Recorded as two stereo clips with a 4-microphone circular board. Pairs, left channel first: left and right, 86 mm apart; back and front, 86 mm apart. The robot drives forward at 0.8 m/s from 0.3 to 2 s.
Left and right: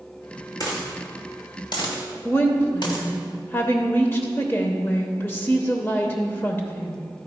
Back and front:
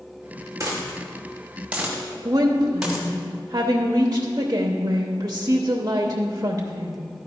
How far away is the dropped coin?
About 2 m.